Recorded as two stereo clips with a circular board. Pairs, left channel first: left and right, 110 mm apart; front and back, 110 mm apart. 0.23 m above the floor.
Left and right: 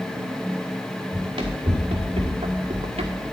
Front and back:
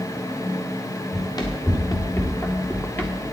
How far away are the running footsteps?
About 2.5 m.